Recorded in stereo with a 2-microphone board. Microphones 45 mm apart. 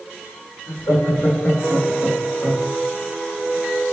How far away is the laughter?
About 2 m.